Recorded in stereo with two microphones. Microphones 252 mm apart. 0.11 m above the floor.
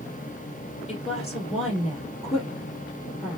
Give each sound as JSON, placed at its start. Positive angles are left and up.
{"t": 0.9, "sound": "a woman speaking", "side_deg": 25, "distance_m": 2.0}